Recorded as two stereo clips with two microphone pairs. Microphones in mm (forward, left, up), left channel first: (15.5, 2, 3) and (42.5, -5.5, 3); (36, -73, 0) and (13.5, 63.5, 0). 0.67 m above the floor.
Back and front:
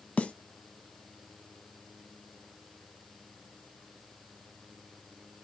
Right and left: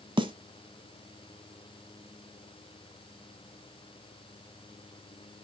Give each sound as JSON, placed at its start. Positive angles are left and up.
{"t": 0.2, "sound": "a snare drum", "azimuth_deg": 145, "distance_m": 0.9}